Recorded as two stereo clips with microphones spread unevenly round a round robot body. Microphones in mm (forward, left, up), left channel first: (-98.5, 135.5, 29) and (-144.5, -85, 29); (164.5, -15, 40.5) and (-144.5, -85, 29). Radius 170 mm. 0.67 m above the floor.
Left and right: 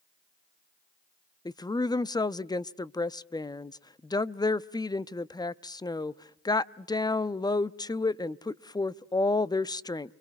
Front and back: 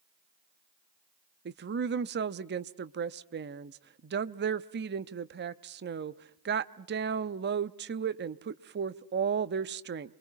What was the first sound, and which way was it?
A woman speaking, 150° left.